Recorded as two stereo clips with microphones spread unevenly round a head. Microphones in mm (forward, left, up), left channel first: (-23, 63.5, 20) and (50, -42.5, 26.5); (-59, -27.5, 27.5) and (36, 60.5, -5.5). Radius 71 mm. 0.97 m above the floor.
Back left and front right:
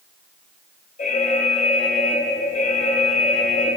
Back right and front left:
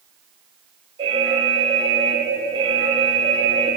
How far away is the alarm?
About 4.5 m.